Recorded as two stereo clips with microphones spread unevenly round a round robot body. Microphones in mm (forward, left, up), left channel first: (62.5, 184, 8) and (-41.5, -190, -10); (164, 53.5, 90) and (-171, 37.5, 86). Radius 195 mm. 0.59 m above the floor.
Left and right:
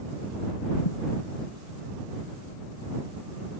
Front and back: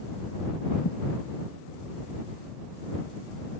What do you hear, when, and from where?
0.8 s a thud: 55° left